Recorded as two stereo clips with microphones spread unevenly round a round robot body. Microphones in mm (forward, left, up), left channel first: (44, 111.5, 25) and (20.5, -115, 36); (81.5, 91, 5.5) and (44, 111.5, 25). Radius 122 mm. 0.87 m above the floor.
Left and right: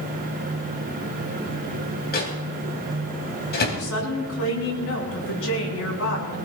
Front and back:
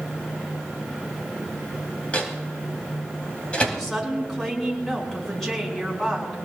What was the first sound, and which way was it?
A microwave, 35° left.